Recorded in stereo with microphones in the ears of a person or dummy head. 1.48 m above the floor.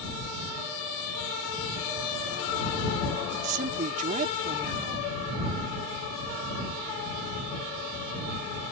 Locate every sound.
3.3 s a woman speaking: 45° right (ahead or behind)